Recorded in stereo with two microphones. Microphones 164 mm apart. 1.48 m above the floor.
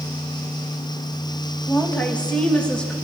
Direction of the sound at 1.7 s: 10° left (ahead or behind).